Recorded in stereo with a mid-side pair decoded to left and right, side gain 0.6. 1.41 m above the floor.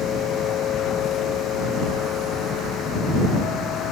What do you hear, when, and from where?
0.0 s a machine running: 55° left